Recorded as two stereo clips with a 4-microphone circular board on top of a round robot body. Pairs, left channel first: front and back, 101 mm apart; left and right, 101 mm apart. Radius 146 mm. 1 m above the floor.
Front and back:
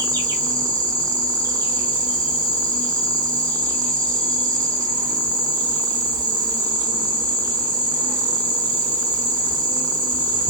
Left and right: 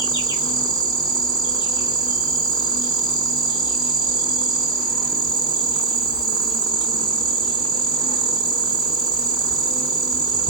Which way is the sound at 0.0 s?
130° left.